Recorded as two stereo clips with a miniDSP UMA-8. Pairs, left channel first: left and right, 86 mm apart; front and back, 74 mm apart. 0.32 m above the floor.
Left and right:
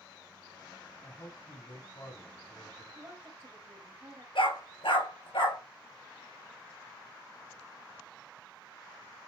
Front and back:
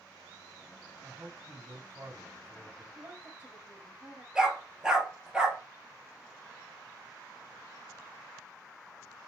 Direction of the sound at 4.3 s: 100° left.